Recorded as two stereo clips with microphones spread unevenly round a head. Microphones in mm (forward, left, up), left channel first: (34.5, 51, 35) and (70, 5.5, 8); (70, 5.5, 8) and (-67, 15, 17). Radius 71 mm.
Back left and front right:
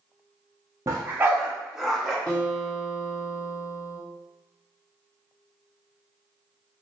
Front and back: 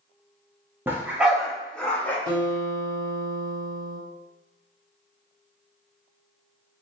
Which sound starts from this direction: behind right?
A dog barking, at 0.9 s.